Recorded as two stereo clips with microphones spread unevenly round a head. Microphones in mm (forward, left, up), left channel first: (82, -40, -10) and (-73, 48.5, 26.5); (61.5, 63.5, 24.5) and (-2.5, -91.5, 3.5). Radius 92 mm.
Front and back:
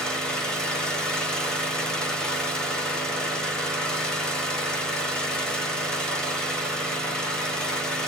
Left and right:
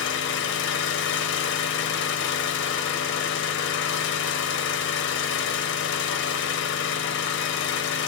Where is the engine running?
55° left, 1.0 m.